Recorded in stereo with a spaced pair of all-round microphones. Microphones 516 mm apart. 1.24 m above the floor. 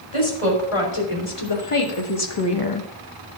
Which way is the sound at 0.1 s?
85° left.